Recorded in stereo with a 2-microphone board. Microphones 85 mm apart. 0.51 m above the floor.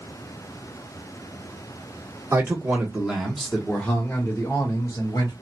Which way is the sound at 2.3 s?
30° right (ahead or behind).